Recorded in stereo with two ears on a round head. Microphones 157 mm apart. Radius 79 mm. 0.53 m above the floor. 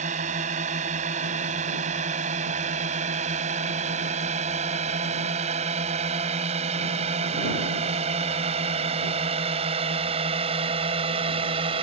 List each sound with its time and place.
0.0 s a drone: 40° right (ahead or behind); by 11.8 s 30° right (ahead or behind)